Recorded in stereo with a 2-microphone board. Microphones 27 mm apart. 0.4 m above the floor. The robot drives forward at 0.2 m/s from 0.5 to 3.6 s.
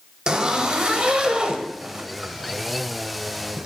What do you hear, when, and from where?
0.3 s a zipper: 35° right (ahead or behind), 1.3 m; by 3.7 s 50° right (ahead or behind), 1.0 m